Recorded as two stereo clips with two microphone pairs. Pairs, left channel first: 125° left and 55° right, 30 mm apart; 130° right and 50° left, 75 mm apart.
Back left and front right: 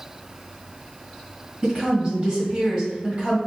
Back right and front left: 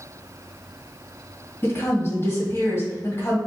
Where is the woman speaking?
95° right, 1.8 m.